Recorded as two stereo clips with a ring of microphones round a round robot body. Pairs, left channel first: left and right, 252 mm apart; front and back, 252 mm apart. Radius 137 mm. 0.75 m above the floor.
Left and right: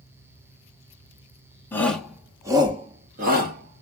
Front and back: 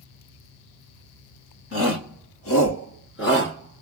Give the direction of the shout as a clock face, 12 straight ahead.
12 o'clock.